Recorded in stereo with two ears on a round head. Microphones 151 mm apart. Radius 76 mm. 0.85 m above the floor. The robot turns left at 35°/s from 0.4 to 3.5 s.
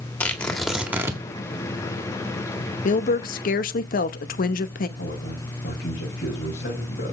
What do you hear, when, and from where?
0.2 s tearing paper: 5° left (ahead or behind), 1.7 m; by 1.2 s 20° right (ahead or behind), 1.7 m
2.9 s a woman speaking: 50° left (ahead or behind), 0.8 m; by 4.9 s 55° left (ahead or behind), 0.8 m
5.0 s a man speaking: 55° left (ahead or behind), 5.5 m